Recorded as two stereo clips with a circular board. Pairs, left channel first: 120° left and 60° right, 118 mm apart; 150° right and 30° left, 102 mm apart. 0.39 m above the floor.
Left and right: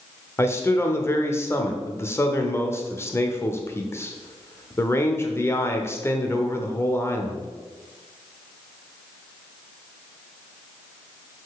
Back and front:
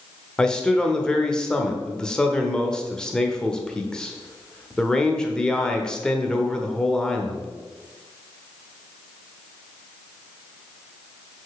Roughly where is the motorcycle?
No motorcycle in this recording.